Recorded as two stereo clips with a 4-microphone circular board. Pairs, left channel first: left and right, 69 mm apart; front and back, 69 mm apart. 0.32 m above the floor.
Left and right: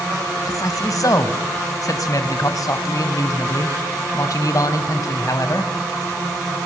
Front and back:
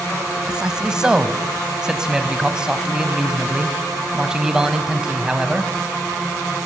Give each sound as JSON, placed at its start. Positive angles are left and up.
{"t": 0.5, "sound": "a man speaking", "azimuth_deg": 100, "distance_m": 1.6}